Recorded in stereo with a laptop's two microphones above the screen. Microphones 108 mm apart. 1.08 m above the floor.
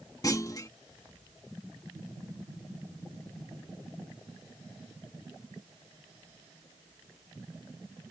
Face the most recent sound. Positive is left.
turn(degrees=35)  # may be behind; listen again after turning